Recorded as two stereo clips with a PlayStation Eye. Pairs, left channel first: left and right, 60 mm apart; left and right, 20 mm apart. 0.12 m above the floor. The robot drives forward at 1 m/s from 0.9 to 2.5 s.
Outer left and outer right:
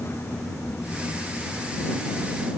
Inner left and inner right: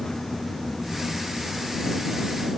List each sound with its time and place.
Only background noise.